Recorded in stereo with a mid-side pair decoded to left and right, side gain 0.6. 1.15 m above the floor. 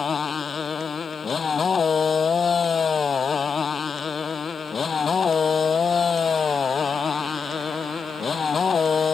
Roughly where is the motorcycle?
Ahead left.